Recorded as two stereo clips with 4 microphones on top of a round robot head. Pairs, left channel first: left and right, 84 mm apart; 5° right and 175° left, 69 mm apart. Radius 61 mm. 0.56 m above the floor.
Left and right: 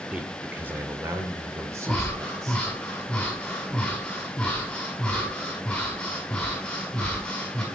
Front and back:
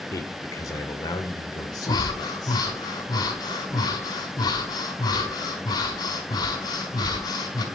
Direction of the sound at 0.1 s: 15° right.